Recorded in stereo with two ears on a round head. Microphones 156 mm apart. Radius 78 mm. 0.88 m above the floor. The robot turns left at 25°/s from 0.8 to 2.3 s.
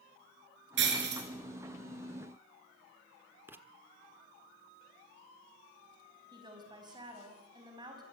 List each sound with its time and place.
0.8 s breaking glass: 75° right (ahead or behind), 6 m; by 1.2 s 65° right (ahead or behind), 6 m
3.5 s writing: 10° right (ahead or behind), 1.2 m
6.3 s a woman speaking: 25° right (ahead or behind), 5 m